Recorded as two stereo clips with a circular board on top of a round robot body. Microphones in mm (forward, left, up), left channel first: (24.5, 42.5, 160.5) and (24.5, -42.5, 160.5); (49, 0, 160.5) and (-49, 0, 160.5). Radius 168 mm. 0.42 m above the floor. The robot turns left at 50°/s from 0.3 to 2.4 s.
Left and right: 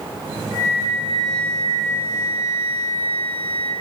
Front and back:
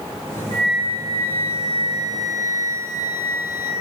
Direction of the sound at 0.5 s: 145° right.